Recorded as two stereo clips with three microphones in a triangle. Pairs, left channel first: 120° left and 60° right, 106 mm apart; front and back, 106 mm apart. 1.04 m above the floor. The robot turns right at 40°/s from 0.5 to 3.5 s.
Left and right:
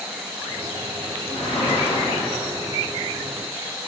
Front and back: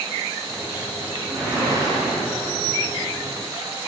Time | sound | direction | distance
1.3 | a whoosh | 105° left | 7.5 m